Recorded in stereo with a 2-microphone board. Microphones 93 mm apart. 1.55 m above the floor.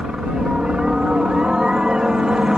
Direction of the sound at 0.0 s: 5° right (ahead or behind).